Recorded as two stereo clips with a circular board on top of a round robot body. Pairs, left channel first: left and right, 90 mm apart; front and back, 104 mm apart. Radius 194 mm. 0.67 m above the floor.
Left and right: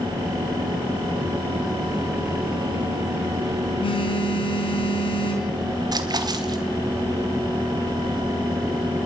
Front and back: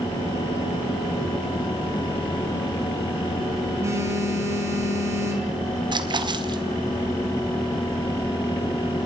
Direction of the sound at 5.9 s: 135° right.